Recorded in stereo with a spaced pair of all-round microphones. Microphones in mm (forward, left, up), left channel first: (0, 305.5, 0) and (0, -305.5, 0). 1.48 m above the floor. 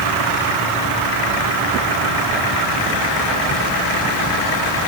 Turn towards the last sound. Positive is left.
No sound to turn to.